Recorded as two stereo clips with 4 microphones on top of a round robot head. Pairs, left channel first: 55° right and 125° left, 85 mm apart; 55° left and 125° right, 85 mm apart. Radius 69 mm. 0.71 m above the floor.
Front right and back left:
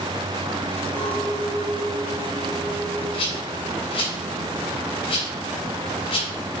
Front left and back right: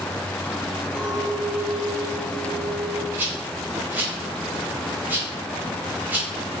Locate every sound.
0.9 s a clink: 25° right, 3 m
3.1 s a rattle: 55° right, 3 m